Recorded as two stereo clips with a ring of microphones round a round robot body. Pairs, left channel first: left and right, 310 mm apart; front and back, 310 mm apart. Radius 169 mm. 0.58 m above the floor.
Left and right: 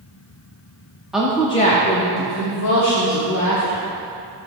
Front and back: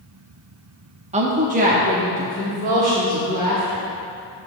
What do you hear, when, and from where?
1.1 s a woman speaking: 175° right, 0.6 m; by 3.9 s 110° left, 1.6 m